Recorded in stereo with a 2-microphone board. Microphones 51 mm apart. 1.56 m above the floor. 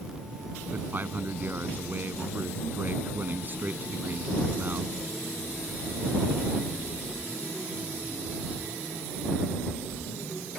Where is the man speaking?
40° right (ahead or behind).